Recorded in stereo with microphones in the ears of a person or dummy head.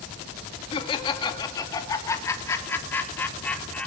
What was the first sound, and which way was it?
Laughter, 35° left (ahead or behind).